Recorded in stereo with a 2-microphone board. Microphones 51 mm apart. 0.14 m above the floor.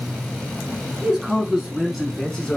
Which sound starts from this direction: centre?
A man speaking, at 1.0 s.